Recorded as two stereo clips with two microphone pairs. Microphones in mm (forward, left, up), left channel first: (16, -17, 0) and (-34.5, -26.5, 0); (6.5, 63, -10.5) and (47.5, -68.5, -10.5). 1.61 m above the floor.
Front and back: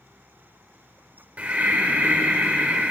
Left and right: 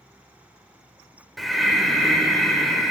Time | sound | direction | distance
1.4 | breathing | 160° right | 1.5 m